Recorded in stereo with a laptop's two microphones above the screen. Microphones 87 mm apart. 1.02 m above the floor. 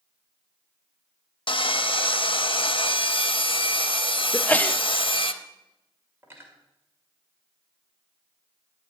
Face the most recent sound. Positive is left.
turn(degrees=-25)  # may be behind; listen again after turning